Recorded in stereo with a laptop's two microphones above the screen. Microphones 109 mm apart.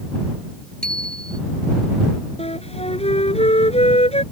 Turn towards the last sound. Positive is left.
turn(degrees=70)  # may be behind; listen again after turning